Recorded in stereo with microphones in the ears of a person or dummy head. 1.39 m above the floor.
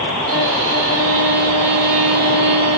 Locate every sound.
0.3 s a violin: 80° right, 3 m